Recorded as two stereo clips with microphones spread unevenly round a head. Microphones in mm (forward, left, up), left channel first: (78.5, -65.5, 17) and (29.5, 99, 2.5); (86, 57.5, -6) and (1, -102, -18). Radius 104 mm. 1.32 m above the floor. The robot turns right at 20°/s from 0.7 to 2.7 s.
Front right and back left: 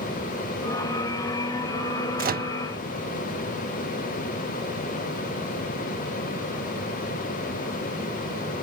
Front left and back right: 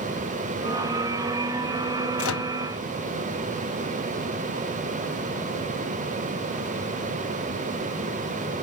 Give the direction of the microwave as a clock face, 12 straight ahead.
10 o'clock.